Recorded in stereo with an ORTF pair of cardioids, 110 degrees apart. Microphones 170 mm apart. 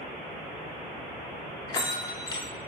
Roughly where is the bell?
Ahead left.